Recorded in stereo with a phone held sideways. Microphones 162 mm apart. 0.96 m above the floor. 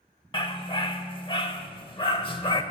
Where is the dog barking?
30° left (ahead or behind), 0.8 m.